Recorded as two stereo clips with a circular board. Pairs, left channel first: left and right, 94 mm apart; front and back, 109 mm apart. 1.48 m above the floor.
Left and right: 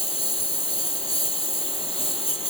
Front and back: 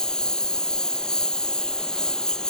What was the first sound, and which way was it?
A lawn mower, 85° left.